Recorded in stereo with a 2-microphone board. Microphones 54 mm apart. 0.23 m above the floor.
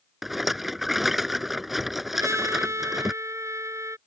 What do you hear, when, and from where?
0.2 s a rattle: 5° right (ahead or behind)
2.1 s a trumpet: 70° right (ahead or behind)